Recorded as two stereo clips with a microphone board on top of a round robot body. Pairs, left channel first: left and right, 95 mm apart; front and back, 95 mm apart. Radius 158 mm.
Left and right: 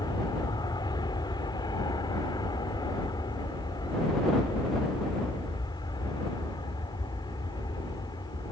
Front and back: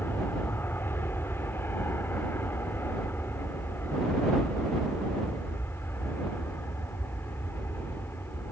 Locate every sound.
0.0 s an aircraft: 65° left